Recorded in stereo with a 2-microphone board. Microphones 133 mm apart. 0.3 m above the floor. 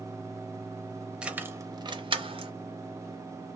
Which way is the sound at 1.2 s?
5° right (ahead or behind).